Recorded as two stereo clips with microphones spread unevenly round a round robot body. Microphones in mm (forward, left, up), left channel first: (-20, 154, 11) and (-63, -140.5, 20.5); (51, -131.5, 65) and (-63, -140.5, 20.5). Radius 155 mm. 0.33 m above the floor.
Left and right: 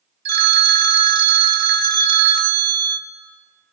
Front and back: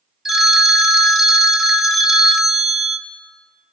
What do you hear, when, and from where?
0.2 s a phone ringing: 125° right, 0.7 m